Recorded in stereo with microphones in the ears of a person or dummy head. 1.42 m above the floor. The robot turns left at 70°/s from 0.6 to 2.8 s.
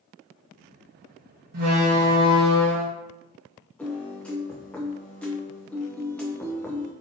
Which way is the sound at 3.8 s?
5° left (ahead or behind).